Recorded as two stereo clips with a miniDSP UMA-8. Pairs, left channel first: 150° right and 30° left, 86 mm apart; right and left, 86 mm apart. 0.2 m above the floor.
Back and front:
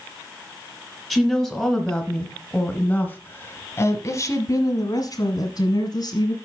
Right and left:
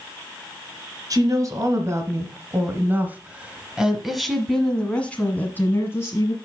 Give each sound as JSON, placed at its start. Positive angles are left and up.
{"t": 1.1, "sound": "a woman speaking", "azimuth_deg": 120, "distance_m": 2.0}